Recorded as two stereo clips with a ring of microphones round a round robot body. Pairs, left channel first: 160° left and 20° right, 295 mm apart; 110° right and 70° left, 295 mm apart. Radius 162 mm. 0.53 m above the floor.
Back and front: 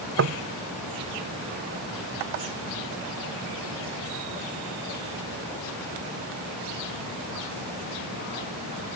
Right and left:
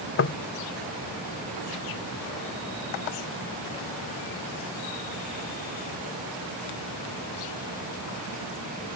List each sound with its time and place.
0.2 s knocking: 65° right